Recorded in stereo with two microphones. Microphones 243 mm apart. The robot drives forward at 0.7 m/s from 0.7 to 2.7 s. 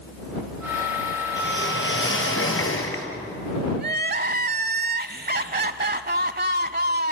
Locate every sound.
1.4 s a whoosh: 50° left (ahead or behind), 3 m; by 3.1 s 70° left (ahead or behind), 2.5 m
3.8 s crying: 45° right (ahead or behind), 0.7 m